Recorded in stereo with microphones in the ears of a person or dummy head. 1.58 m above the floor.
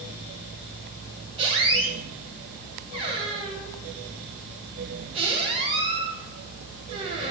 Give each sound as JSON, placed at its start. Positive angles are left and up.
{"t": 1.4, "sound": "a squeak", "side_deg": -30, "distance_m": 1.0}